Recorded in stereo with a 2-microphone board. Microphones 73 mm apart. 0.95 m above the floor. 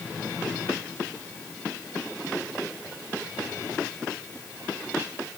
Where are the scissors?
No scissors in this recording.